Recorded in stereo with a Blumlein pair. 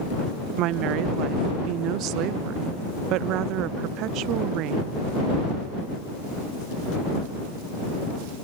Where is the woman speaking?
40° right.